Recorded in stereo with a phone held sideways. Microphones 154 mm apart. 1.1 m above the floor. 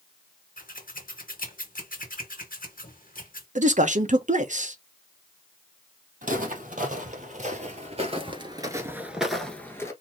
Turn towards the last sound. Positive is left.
turn(degrees=20)  # may be behind; listen again after turning